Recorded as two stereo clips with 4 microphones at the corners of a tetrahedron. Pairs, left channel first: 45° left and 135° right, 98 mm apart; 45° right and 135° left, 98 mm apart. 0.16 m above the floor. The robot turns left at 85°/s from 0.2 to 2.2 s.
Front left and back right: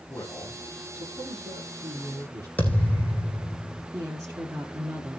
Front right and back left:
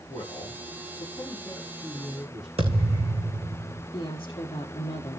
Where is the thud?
120° left, 3.5 m.